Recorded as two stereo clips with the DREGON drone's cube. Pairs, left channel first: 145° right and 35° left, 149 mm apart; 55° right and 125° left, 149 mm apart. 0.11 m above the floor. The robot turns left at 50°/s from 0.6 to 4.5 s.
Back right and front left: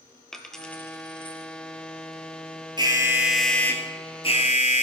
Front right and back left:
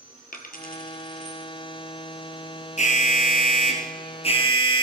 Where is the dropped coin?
60° right, 1.5 m; by 1.5 s 105° right, 1.5 m.